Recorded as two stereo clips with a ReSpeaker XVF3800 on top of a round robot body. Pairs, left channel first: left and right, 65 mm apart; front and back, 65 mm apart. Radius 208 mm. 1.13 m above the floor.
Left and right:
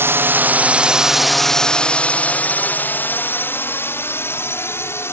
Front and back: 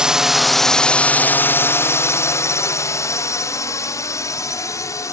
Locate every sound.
0.0 s a drone: 110° right; by 5.2 s 40° left